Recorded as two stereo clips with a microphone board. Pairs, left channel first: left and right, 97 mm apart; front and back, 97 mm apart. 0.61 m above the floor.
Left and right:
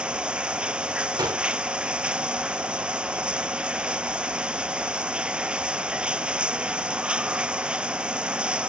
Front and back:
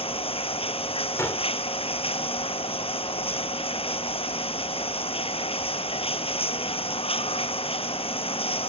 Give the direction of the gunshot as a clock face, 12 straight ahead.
2 o'clock.